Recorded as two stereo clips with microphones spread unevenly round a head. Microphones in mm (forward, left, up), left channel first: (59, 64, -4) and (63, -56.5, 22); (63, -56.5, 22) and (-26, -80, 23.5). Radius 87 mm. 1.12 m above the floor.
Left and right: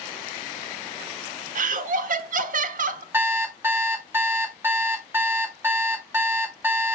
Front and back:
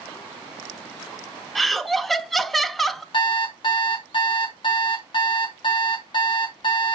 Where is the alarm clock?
20° right, 0.9 m.